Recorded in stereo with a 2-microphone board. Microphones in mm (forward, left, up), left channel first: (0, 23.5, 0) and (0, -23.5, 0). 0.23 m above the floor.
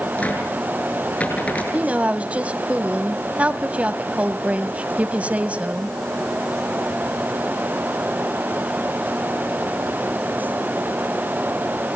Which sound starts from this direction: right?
A woman speaking, at 1.7 s.